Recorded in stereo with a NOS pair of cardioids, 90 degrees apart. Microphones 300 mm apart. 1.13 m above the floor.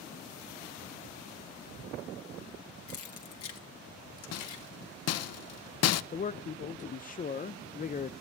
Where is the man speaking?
30° left, 0.5 m.